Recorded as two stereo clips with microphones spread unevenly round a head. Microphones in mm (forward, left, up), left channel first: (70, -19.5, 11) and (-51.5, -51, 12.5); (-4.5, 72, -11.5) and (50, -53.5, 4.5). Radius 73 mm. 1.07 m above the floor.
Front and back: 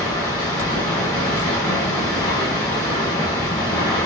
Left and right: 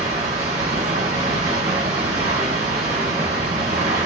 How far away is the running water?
About 2 m.